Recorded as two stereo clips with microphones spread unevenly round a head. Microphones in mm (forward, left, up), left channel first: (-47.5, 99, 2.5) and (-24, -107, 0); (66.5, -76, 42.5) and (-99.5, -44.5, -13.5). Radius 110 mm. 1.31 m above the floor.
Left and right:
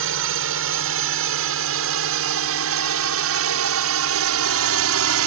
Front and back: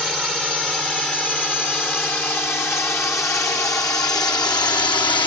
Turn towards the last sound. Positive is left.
turn(degrees=-80)